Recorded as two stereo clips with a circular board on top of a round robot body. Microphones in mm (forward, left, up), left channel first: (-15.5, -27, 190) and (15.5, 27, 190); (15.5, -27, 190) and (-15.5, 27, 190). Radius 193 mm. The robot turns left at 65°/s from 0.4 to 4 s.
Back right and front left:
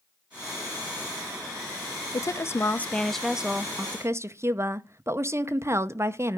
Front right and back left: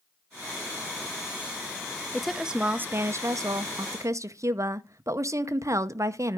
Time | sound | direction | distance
2.1 | a woman speaking | 140° right | 0.8 m